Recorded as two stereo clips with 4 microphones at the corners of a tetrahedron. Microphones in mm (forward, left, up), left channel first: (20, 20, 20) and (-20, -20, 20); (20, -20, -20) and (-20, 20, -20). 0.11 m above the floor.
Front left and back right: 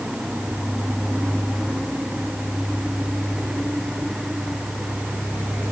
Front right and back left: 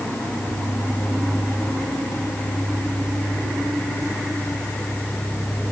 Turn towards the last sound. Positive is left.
No sound to turn to.